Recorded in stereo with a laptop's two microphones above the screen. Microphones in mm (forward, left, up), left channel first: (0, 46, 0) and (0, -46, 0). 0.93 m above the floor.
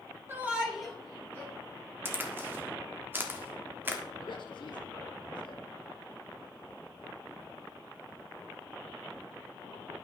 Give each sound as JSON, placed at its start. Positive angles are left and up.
{"t": 0.3, "sound": "a shout", "side_deg": -25, "distance_m": 1.3}
{"t": 2.0, "sound": "a crack", "side_deg": -25, "distance_m": 1.3}
{"t": 4.2, "sound": "a man speaking", "side_deg": 60, "distance_m": 1.5}